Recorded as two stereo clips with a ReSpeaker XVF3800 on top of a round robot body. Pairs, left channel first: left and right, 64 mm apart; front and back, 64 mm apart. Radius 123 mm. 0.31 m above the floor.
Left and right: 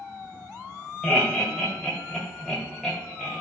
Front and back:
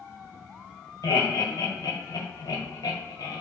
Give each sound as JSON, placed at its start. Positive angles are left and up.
{"t": 1.0, "sound": "laughter", "azimuth_deg": 10, "distance_m": 1.7}